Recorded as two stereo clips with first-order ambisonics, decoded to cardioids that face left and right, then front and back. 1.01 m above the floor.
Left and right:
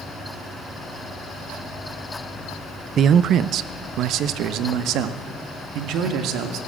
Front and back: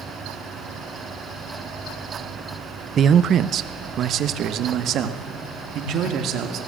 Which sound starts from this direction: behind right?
A man speaking, at 3.0 s.